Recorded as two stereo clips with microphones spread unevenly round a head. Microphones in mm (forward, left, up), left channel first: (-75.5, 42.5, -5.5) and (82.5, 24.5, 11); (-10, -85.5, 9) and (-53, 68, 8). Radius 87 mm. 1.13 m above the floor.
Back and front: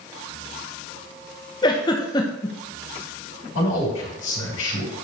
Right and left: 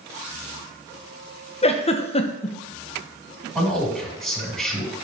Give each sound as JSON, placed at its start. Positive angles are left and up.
{"t": 1.6, "sound": "a giggle", "azimuth_deg": -125, "distance_m": 0.9}
{"t": 3.5, "sound": "a man speaking", "azimuth_deg": -160, "distance_m": 5.0}